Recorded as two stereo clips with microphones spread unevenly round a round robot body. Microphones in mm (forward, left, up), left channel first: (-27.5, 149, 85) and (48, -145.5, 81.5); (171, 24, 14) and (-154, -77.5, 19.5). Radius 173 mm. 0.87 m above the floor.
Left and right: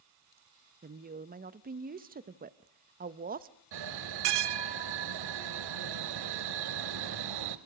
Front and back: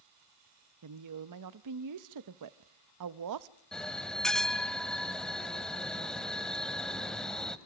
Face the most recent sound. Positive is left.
turn(degrees=-70)